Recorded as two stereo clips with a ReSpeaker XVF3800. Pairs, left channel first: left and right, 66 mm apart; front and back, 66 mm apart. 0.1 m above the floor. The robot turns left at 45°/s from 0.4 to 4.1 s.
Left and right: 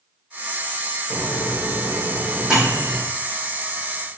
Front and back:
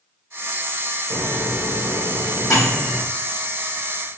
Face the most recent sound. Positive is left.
turn(degrees=-80)